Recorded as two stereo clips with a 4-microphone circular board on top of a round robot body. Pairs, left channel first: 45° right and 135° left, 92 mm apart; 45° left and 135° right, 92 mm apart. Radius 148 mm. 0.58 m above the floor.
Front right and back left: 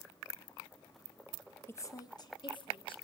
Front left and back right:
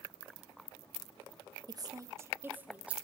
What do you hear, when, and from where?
1.7 s a woman speaking: 105° right, 1.3 m; by 3.0 s 60° right, 2 m